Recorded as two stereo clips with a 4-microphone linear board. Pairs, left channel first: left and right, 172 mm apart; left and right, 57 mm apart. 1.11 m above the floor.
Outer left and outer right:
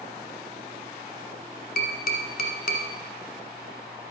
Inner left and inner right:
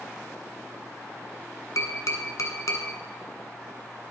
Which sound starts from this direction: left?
Tapping, at 1.8 s.